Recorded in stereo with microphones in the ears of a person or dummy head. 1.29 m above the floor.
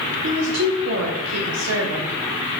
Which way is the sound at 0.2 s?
75° right (ahead or behind).